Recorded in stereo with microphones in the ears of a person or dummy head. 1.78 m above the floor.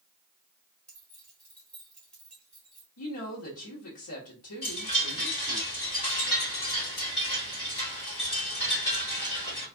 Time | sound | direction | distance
0.9 | keys jangling | 10° left (ahead or behind) | 0.9 m
3.0 | a woman speaking | 80° left | 1.2 m
4.6 | a chime | 30° left (ahead or behind) | 2.5 m